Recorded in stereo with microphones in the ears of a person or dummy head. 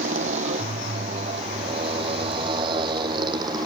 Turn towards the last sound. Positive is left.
turn(degrees=-25)  # may be behind; listen again after turning